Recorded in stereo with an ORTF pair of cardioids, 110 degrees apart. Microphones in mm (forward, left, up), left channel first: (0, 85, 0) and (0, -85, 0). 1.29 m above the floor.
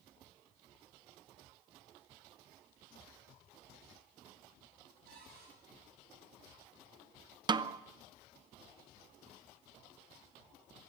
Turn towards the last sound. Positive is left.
turn(degrees=-25)